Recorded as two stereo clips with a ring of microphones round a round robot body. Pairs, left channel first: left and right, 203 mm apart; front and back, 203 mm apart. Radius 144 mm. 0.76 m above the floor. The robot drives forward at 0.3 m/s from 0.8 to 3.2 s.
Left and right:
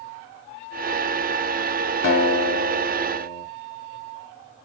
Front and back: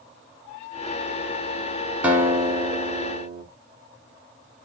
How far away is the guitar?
About 1.5 m.